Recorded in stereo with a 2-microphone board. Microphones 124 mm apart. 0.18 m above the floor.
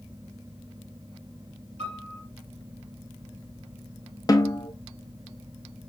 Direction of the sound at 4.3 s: 30° left (ahead or behind).